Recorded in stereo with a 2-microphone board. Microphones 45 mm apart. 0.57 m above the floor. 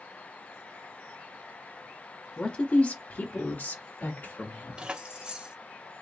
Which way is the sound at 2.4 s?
25° left (ahead or behind).